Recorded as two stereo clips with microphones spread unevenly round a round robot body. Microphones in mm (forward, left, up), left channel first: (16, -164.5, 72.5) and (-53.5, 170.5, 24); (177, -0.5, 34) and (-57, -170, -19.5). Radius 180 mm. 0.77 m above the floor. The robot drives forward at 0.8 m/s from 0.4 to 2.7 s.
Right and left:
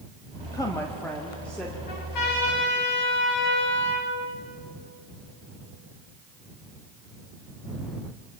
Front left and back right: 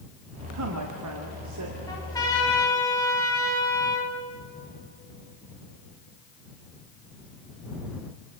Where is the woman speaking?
160° right, 1.6 m; by 1.8 s 170° right, 2.5 m.